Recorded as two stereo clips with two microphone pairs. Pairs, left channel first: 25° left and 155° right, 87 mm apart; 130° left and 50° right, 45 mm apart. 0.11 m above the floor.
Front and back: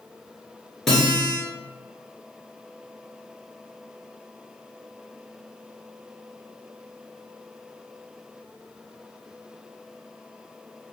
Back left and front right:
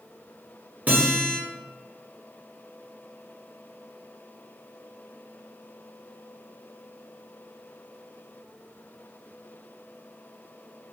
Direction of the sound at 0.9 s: 60° right.